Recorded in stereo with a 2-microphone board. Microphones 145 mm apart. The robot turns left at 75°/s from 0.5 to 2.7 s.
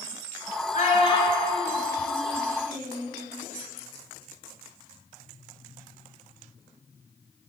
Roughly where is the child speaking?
Left.